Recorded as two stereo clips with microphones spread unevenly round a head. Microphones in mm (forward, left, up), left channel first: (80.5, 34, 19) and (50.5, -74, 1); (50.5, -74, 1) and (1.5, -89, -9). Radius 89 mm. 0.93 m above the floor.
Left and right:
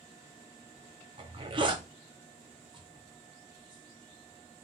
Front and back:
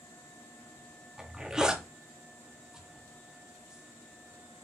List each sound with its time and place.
1.2 s a zipper: 95° right, 0.9 m